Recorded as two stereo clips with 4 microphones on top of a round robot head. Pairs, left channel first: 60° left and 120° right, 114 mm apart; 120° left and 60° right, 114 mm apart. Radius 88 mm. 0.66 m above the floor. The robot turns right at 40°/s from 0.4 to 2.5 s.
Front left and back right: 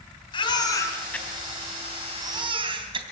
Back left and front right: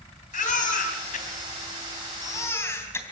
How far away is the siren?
I don't hear a siren.